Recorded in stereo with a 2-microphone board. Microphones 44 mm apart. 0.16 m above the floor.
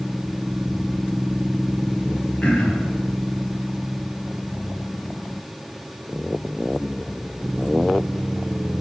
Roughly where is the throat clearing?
Left.